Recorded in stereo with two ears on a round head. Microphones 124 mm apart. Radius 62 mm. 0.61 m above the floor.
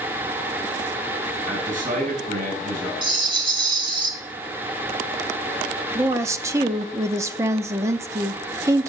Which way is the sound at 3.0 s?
35° right (ahead or behind).